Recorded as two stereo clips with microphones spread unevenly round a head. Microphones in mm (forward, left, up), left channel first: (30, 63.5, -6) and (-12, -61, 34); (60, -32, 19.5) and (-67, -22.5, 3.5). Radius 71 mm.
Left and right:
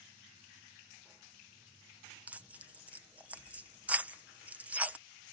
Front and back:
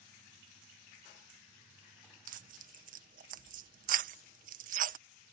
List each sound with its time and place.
2.3 s tearing paper: 165° left